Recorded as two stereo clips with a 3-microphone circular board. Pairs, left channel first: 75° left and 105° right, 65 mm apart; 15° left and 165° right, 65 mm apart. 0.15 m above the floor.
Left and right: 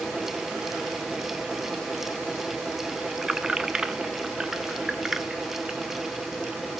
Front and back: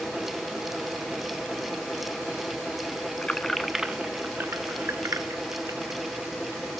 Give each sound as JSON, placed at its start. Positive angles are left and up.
{"t": 3.2, "sound": "keys jangling", "azimuth_deg": -30, "distance_m": 0.8}